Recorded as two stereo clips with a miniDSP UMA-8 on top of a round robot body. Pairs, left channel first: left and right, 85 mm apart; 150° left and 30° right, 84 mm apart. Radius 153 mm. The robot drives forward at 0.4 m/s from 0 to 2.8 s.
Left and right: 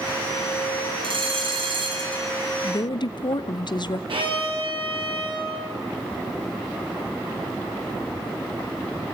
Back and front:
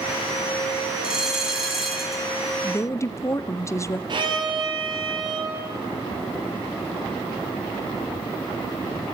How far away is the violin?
About 6 m.